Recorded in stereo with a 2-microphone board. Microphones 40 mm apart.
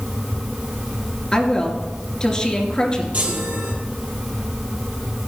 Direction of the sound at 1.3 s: 20° left (ahead or behind).